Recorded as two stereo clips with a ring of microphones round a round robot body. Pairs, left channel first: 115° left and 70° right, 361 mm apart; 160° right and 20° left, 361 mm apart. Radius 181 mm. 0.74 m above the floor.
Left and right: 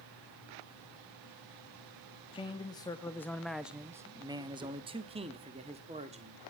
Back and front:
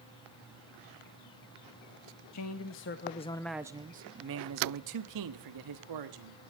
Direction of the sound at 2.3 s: 175° right.